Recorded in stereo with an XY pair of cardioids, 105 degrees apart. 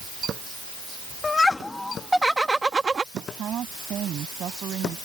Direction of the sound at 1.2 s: 30° left.